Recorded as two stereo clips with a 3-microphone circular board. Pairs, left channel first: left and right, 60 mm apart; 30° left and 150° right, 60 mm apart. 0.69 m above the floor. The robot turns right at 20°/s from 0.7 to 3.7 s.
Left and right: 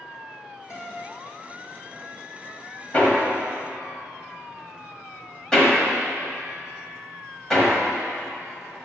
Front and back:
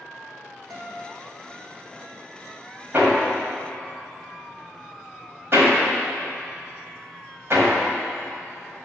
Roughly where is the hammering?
Behind left.